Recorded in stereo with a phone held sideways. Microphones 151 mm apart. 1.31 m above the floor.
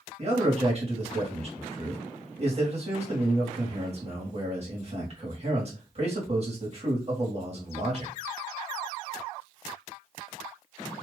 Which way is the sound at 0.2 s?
45° right (ahead or behind).